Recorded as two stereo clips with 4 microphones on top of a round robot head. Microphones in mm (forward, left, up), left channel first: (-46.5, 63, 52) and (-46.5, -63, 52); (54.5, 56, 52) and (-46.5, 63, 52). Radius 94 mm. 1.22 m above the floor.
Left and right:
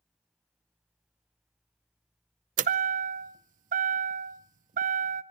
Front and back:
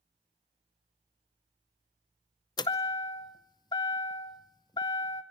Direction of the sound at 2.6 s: 60° right.